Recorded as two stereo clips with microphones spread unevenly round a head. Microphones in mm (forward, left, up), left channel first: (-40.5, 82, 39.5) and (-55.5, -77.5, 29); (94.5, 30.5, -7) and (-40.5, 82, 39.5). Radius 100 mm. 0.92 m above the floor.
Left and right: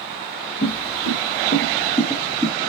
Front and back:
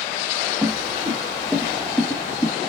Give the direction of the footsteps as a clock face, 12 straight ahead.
9 o'clock.